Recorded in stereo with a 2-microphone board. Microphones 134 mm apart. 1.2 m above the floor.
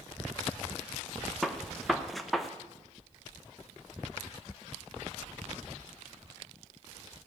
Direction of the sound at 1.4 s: Centre (ahead or behind).